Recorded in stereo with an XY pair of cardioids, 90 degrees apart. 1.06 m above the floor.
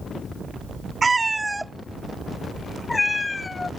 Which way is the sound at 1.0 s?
40° right.